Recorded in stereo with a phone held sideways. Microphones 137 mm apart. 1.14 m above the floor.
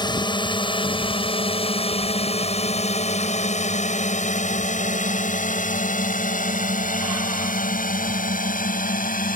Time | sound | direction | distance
0.0 | a drone | 35° left (ahead or behind) | ?